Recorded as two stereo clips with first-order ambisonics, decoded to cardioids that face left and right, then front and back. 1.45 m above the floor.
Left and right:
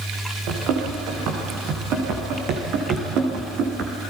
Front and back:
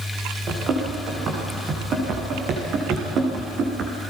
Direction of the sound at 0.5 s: 125° right.